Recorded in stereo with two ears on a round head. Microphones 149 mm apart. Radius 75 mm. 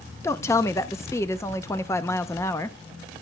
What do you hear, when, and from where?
0.2 s a woman speaking: 15° left (ahead or behind), 0.6 m